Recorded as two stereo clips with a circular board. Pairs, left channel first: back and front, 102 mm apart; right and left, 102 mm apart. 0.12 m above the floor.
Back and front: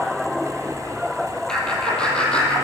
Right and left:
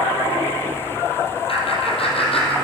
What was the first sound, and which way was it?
Laughter, 100° right.